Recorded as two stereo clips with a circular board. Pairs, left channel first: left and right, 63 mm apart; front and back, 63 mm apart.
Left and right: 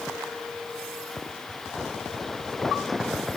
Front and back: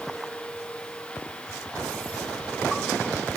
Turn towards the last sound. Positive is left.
No sound to turn to.